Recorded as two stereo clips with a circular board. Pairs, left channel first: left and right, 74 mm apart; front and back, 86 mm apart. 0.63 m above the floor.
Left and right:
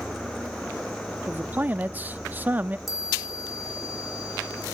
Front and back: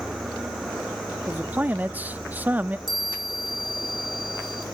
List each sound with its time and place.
1.3 s a man speaking: 130° right, 0.6 m
2.9 s a chime: 175° right, 3.5 m